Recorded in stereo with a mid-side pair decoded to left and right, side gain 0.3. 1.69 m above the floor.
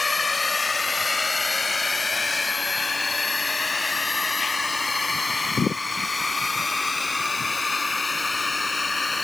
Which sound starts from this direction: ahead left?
A drone, at 0.0 s.